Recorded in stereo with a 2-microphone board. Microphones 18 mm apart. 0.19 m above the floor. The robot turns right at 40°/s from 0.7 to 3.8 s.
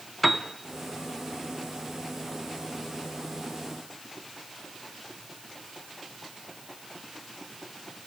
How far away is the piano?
About 0.7 m.